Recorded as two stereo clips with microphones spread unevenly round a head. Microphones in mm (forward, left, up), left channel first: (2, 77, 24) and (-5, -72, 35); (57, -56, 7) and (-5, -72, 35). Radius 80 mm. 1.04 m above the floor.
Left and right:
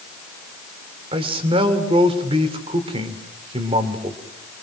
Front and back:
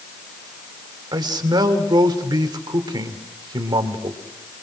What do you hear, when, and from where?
1.1 s a man speaking: 150° right, 3 m